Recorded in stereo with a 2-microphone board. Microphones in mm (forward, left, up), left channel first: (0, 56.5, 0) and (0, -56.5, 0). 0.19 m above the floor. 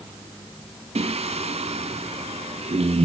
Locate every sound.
0.9 s singing: 65° right (ahead or behind), 0.6 m